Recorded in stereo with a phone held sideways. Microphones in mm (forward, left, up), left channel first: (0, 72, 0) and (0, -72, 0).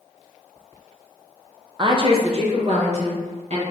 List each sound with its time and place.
1.8 s a woman speaking: 30° right (ahead or behind), 0.5 m; by 3.6 s 50° right (ahead or behind), 1.6 m